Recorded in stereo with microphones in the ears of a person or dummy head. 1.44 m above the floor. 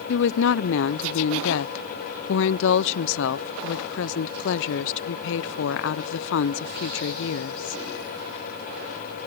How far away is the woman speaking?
About 0.5 m.